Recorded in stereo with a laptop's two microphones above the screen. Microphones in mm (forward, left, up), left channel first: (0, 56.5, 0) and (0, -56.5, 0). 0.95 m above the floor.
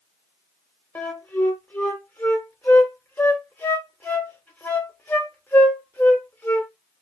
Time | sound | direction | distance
0.9 | a flute | 15° left (ahead or behind) | 1.0 m